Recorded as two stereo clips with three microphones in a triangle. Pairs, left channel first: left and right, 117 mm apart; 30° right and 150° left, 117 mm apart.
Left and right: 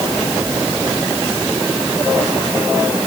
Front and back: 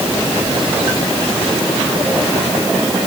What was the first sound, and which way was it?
Only background noise.